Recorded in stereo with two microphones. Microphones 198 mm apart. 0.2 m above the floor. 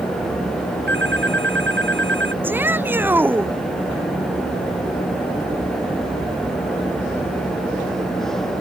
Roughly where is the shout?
Centre.